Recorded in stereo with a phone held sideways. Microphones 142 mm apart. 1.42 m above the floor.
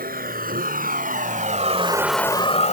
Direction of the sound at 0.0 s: 80° right.